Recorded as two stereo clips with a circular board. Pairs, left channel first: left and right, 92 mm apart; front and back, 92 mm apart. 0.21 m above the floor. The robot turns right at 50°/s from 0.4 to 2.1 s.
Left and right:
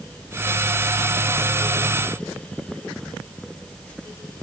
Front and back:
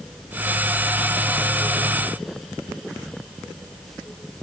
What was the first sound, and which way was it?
Only background noise.